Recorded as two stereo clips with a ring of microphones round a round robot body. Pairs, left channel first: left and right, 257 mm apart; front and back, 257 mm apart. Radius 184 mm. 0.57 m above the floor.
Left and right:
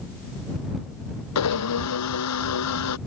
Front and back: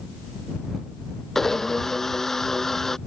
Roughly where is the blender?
Left.